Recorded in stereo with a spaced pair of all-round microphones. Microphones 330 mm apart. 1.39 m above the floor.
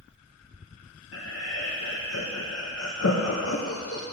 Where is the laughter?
45° left (ahead or behind), 0.7 m.